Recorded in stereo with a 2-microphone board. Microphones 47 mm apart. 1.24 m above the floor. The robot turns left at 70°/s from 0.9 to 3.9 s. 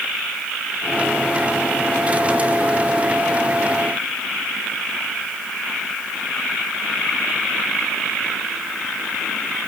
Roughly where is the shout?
I don't hear a shout.